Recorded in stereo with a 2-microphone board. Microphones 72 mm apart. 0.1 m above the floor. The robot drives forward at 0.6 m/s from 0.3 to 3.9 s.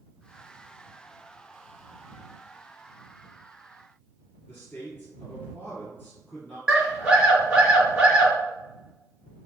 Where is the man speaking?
30° left (ahead or behind), 1.6 m.